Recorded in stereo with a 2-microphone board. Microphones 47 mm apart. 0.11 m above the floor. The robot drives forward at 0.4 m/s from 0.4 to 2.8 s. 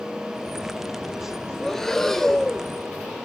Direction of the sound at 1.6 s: 10° left (ahead or behind).